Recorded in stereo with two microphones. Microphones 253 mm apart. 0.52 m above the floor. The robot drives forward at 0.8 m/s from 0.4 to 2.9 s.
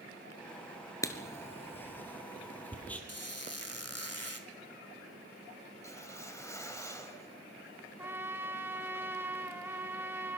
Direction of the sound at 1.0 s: 10° left (ahead or behind).